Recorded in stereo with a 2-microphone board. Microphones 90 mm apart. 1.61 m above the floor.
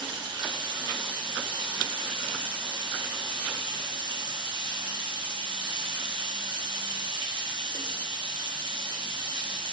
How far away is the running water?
About 0.8 m.